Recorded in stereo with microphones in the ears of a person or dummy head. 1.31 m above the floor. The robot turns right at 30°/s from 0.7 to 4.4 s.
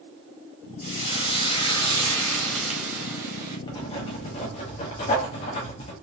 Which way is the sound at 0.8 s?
125° left.